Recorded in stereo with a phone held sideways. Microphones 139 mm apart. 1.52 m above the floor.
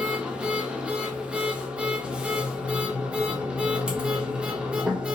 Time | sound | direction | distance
0.0 | a machine running | 5° right (ahead or behind) | 0.7 m